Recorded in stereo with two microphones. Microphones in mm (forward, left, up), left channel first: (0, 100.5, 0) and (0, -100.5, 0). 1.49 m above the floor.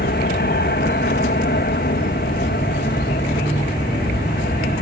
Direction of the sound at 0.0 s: 60° left (ahead or behind).